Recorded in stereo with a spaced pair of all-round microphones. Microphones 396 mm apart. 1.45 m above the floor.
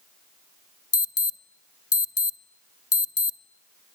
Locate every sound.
0.9 s an alarm: 35° left (ahead or behind), 0.6 m